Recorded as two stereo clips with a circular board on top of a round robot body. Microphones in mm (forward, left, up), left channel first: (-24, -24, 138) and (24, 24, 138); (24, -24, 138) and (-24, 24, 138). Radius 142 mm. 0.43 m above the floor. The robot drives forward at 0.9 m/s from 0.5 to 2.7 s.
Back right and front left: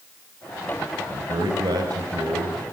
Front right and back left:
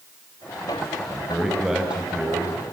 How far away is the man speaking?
About 3.5 m.